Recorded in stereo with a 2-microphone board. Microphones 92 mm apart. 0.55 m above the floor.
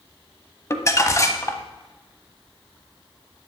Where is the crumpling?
30° left (ahead or behind), 0.9 m.